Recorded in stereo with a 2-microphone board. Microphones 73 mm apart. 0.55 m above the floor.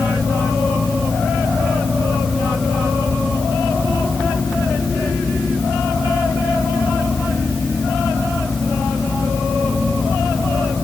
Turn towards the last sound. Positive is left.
No sound to turn to.